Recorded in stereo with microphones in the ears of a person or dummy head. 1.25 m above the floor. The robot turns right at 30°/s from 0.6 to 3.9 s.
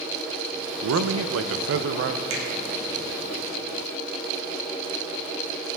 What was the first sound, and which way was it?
A man speaking, 95° right.